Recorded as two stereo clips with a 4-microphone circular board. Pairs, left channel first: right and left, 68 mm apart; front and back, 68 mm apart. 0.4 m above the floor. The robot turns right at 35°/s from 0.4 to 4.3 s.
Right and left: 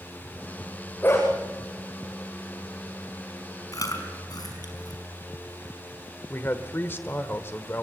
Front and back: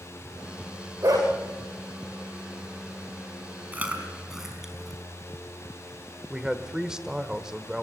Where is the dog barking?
150° right, 9.5 m; by 1.3 s 140° right, 9.5 m.